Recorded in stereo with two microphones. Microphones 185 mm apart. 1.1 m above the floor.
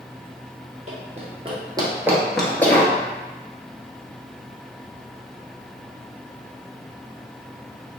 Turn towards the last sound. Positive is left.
turn(degrees=20)  # may be behind; listen again after turning